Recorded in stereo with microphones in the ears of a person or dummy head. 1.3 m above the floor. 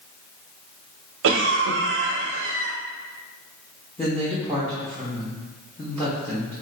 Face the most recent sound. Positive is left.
turn(degrees=10)  # may be behind; listen again after turning